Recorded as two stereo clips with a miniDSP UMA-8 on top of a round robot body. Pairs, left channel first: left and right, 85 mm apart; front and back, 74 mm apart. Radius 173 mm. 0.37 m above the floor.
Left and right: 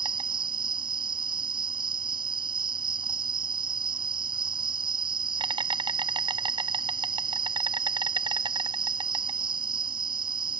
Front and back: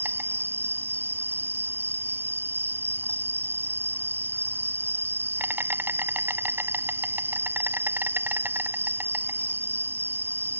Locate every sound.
0.0 s an insect: 120° right